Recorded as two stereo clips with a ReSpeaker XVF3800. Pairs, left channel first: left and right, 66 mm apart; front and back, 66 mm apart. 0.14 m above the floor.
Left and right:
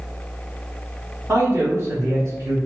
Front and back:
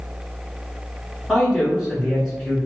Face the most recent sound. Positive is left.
turn(degrees=-100)